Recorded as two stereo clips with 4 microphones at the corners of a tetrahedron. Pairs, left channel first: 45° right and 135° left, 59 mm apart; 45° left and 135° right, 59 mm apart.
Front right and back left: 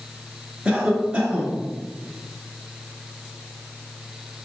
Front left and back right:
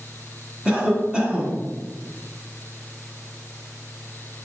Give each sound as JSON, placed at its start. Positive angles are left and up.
{"t": 0.7, "sound": "a cough", "azimuth_deg": 180, "distance_m": 1.3}